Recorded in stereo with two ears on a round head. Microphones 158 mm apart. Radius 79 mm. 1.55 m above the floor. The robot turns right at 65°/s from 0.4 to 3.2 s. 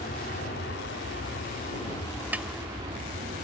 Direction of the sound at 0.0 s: 50° left (ahead or behind).